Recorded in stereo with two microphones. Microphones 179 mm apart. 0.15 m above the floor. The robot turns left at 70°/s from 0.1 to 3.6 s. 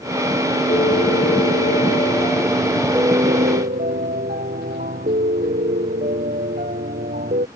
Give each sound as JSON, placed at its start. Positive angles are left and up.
{"t": 0.7, "sound": "a piano", "azimuth_deg": 140}